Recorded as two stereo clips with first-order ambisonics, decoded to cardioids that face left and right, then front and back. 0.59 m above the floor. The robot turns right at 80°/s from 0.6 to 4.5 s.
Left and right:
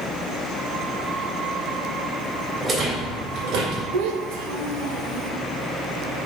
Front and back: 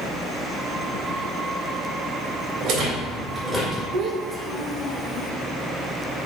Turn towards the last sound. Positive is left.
turn(degrees=-75)